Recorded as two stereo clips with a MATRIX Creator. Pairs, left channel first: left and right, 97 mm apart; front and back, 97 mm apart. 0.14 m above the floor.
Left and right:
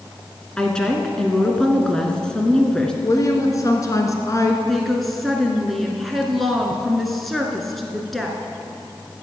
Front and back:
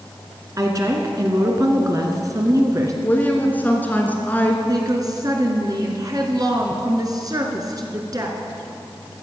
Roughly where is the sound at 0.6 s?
Behind.